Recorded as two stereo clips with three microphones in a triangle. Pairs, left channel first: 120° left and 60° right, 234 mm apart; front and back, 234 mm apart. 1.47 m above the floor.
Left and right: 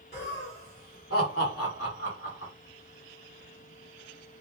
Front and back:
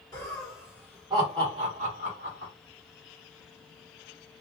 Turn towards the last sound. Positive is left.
turn(degrees=140)